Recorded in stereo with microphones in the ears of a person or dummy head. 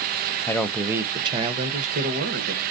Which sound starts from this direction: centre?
A man speaking, at 0.5 s.